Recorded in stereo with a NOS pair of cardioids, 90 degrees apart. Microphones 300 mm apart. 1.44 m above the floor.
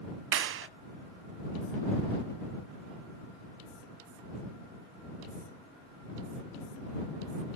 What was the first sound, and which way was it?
A clap, 45° right.